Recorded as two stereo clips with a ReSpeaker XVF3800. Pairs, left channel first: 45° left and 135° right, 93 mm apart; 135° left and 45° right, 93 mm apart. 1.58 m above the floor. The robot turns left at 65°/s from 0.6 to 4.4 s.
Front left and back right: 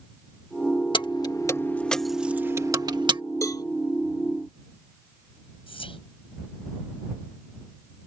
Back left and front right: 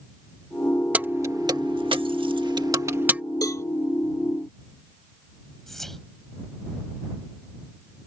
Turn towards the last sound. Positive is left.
turn(degrees=50)